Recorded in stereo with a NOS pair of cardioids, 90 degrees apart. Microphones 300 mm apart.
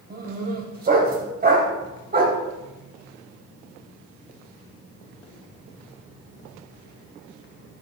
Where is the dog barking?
30° right, 3 m.